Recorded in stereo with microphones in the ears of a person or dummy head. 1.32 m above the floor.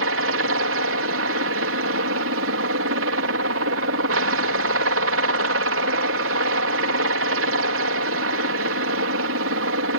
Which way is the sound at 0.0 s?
60° right (ahead or behind).